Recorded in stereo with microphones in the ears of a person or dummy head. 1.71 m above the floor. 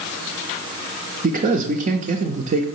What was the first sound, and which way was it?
A man speaking, 40° right (ahead or behind).